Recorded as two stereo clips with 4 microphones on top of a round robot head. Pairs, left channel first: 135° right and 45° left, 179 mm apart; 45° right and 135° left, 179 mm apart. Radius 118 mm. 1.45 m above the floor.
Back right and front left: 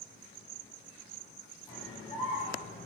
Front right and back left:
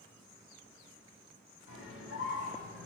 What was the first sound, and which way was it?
A scream, 70° right.